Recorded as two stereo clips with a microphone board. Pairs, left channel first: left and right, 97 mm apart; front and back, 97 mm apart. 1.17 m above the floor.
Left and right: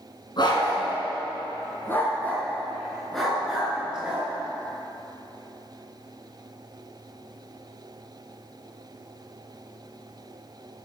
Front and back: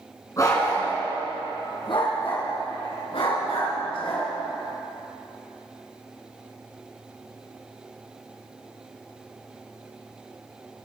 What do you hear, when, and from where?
0.4 s a dog barking: 55° left, 3.5 m; by 4.3 s 10° right, 4.5 m